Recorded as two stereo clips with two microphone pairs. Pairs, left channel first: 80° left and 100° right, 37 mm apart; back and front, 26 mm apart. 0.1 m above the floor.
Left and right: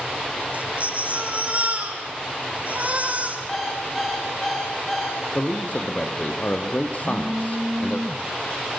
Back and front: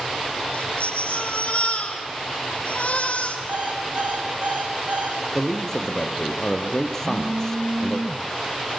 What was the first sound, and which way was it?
A baby crying, 150° right.